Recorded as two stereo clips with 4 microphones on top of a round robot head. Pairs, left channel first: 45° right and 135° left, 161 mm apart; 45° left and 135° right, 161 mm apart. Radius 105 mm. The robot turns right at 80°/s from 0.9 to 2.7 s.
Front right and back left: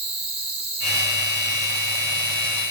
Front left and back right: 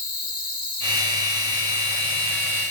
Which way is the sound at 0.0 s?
80° left.